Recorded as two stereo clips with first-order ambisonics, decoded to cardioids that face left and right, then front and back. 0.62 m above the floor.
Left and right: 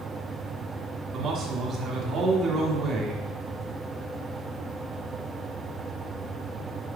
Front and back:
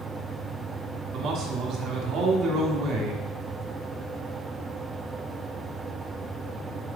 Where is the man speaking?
145° right, 1.5 m.